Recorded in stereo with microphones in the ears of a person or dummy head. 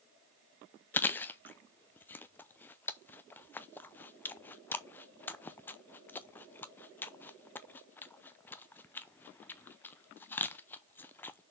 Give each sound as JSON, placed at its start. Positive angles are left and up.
{"t": 0.9, "sound": "chewing", "side_deg": 15, "distance_m": 0.5}